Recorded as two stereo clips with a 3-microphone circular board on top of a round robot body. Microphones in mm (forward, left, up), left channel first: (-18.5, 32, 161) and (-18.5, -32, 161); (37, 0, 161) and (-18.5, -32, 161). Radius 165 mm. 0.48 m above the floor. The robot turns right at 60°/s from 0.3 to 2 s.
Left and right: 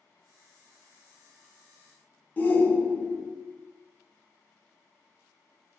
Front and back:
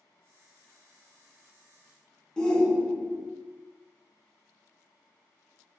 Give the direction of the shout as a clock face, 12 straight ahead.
9 o'clock.